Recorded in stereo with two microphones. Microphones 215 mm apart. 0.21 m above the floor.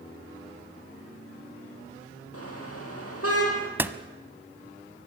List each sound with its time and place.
2.3 s a car horn: 80° left, 4.5 m
3.8 s a door slam: 10° right (ahead or behind), 0.9 m